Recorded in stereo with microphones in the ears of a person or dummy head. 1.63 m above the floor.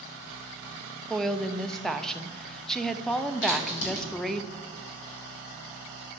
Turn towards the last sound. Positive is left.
turn(degrees=65)  # may be behind; listen again after turning